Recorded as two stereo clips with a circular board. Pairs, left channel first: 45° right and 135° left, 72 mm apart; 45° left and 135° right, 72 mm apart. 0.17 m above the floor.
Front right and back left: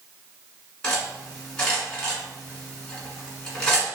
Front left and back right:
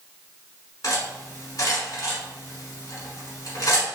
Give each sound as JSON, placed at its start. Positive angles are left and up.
{"t": 0.8, "sound": "cutlery clinking", "azimuth_deg": 35, "distance_m": 1.2}